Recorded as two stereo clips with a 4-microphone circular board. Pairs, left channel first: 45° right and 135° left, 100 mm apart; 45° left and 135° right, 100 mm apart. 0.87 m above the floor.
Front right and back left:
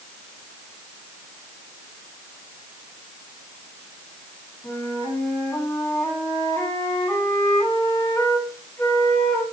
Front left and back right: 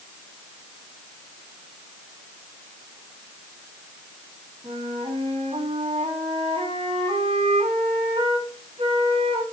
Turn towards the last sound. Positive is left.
turn(degrees=-105)